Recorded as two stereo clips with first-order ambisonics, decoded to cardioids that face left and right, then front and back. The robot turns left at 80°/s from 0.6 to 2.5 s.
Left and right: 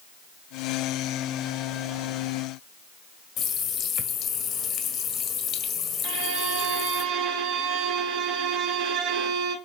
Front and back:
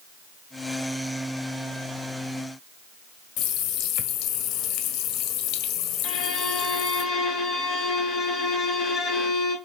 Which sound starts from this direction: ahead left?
A running tap, at 3.4 s.